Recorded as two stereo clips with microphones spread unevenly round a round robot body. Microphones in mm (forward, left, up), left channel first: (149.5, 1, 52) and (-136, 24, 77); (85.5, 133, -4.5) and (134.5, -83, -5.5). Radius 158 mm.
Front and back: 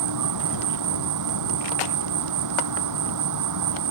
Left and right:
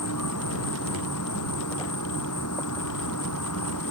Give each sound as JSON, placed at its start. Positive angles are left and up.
{"t": 0.0, "sound": "an insect", "azimuth_deg": 150}